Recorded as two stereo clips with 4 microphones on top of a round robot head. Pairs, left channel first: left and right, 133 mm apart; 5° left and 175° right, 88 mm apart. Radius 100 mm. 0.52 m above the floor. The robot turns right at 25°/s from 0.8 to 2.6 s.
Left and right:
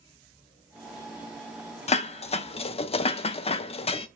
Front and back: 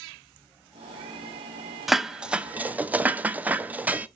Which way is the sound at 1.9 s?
95° left.